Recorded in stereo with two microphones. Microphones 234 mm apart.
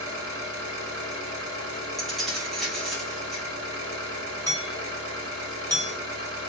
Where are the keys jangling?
Centre (ahead or behind), 1.3 m.